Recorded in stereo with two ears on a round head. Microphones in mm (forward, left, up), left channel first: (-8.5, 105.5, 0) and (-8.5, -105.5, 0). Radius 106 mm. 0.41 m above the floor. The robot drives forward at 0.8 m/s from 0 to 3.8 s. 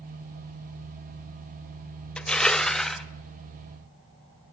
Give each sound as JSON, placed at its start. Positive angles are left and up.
{"t": 2.2, "sound": "crushing", "side_deg": 5, "distance_m": 0.6}